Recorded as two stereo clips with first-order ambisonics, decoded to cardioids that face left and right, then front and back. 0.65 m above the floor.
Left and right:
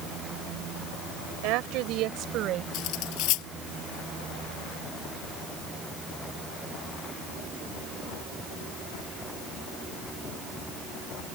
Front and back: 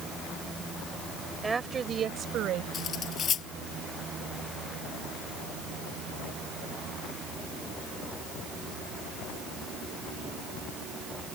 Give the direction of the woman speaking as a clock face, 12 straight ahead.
3 o'clock.